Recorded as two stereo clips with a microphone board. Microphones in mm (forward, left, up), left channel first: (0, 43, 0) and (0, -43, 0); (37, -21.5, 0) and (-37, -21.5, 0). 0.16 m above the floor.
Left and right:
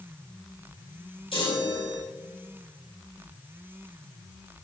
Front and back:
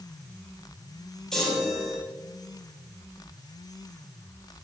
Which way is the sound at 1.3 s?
85° left.